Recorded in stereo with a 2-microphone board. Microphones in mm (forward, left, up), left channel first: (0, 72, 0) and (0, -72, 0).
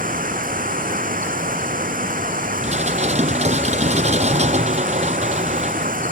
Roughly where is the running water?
Right.